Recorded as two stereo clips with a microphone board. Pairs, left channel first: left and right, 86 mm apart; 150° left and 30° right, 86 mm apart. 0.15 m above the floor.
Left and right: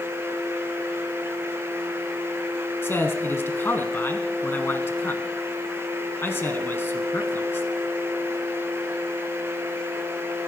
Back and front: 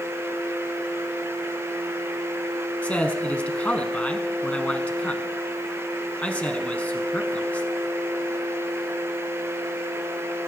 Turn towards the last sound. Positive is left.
turn(degrees=95)